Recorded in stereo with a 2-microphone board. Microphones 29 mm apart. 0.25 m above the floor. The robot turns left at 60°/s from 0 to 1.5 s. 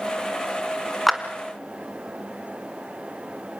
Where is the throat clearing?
No throat clearing in this recording.